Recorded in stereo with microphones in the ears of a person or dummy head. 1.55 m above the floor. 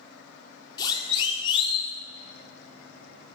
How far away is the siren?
About 3 m.